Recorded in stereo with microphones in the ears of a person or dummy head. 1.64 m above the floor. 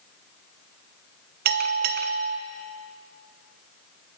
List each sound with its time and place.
1.4 s a bell: 50° right (ahead or behind), 1.1 m